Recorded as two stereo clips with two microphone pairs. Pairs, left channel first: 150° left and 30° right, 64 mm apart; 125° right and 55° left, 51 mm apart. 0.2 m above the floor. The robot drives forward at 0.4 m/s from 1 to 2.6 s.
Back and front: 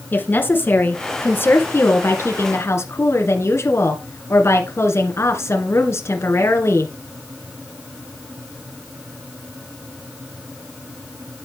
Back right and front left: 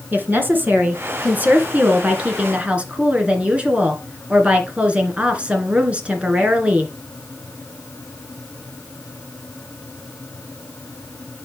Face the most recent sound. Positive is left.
turn(degrees=120)